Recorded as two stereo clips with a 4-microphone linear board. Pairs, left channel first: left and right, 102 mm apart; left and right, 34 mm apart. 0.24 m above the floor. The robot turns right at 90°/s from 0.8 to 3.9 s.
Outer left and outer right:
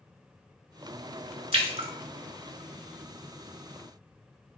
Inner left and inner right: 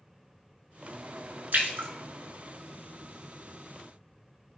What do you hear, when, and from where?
1.5 s a splash: 75° right (ahead or behind), 0.6 m; by 1.9 s 70° right (ahead or behind), 0.6 m